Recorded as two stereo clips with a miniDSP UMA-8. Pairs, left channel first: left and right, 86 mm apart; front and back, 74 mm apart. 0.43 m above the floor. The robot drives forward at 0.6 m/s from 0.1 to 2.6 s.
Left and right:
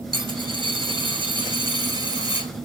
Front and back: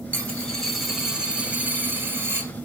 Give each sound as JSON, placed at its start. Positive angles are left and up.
{"t": 0.1, "sound": "a dropped coin", "azimuth_deg": -70, "distance_m": 1.3}